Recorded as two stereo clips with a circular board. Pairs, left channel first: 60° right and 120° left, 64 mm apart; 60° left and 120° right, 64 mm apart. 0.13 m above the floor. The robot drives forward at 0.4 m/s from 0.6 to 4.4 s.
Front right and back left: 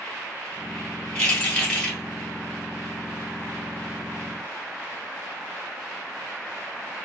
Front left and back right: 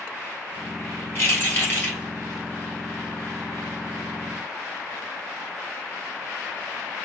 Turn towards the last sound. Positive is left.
turn(degrees=50)